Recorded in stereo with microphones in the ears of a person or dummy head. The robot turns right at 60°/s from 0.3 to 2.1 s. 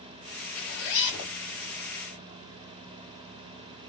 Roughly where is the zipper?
Ahead left.